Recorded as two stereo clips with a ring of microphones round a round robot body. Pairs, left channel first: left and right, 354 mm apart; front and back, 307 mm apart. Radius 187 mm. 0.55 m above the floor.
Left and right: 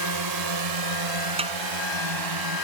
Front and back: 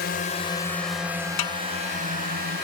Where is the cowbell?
No cowbell in this recording.